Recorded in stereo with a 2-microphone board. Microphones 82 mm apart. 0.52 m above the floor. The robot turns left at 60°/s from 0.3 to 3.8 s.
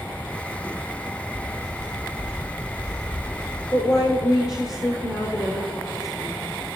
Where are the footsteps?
75° right (ahead or behind), 1.8 m; by 3.6 s 65° left (ahead or behind), 4 m.